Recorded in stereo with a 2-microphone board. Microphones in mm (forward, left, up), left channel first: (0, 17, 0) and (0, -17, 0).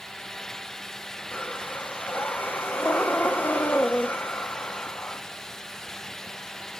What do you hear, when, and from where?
1.3 s breathing: 70° left (ahead or behind), 1.6 m